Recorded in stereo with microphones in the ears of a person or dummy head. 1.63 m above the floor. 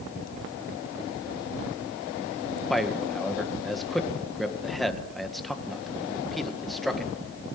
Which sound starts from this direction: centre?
A man speaking, at 2.7 s.